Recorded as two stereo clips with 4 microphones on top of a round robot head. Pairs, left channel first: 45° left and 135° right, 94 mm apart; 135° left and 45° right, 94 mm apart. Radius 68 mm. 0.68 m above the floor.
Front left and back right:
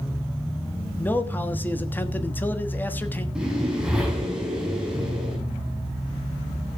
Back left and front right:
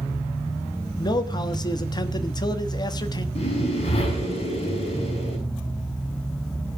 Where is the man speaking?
110° left, 1.3 m.